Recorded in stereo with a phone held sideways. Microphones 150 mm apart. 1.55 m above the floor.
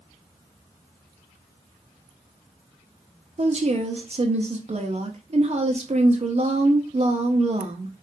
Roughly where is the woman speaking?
Right.